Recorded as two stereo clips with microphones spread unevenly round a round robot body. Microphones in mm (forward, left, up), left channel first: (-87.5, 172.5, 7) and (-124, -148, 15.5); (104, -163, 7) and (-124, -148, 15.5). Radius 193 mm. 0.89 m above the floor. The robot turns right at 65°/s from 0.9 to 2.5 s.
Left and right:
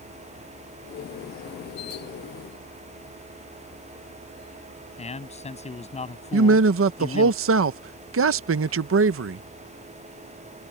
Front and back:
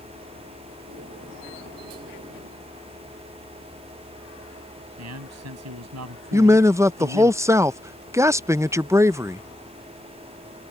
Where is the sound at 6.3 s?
110° right.